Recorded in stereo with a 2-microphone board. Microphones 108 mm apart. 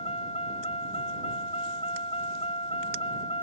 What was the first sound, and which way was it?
A vehicle, 65° left (ahead or behind).